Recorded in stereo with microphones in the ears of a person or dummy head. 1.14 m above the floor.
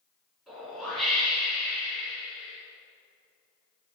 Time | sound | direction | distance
0.5 | a whoosh | 5° right (ahead or behind) | 3 m